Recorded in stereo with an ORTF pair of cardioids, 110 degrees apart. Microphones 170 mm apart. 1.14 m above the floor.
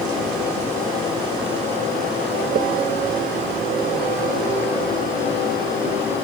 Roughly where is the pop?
Ahead right.